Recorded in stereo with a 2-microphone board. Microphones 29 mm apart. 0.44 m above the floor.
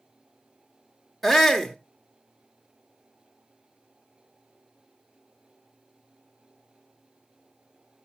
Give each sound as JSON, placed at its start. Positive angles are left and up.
{"t": 1.2, "sound": "a shout", "side_deg": 5, "distance_m": 0.9}